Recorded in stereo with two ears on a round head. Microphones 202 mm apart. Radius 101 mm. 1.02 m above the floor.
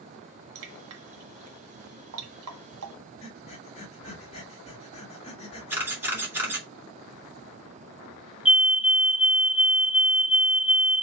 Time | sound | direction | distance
0.6 | dripping | 70° right (ahead or behind) | 1.5 m
3.2 | breathing | 30° left (ahead or behind) | 2 m
5.7 | a camera shutter | 10° right (ahead or behind) | 2.5 m
8.4 | a fire alarm | 5° right (ahead or behind) | 1.1 m